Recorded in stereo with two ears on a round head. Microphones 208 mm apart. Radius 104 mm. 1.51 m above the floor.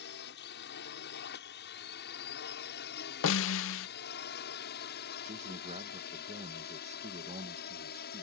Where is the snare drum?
60° left (ahead or behind).